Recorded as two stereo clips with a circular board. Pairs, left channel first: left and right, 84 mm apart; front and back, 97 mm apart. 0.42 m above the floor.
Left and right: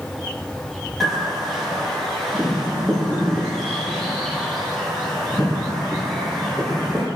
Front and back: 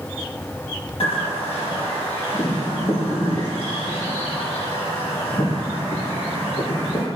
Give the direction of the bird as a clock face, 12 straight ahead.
12 o'clock.